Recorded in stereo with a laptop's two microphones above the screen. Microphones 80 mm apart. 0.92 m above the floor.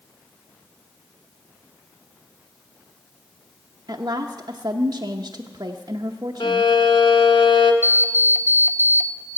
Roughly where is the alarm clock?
Left.